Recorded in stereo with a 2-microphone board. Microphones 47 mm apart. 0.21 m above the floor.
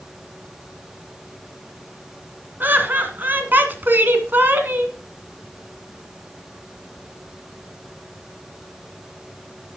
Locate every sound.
2.6 s laughter: 40° right (ahead or behind), 1.9 m